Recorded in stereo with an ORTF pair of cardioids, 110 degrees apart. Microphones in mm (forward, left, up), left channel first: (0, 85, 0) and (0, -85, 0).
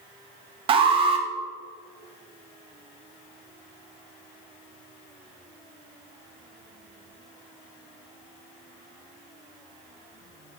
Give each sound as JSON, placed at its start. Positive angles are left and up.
{"t": 0.7, "sound": "an alarm", "azimuth_deg": -35, "distance_m": 0.6}